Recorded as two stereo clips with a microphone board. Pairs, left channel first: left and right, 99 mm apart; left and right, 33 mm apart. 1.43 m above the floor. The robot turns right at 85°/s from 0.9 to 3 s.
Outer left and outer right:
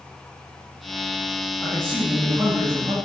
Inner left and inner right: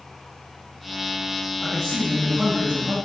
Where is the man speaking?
150° left, 2 m; by 3.0 s 95° right, 2 m.